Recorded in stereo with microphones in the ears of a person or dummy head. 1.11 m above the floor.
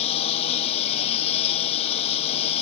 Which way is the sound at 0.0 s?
35° left (ahead or behind).